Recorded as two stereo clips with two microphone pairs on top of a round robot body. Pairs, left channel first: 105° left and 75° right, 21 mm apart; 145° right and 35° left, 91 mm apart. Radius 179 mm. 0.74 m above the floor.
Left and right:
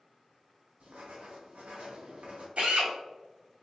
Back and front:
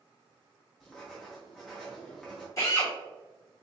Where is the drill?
90° right, 1.8 m.